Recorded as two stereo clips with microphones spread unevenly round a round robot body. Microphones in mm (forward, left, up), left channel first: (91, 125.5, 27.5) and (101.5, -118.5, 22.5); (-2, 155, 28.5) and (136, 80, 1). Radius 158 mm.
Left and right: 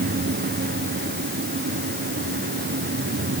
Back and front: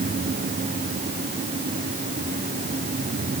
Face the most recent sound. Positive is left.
No sound to turn to.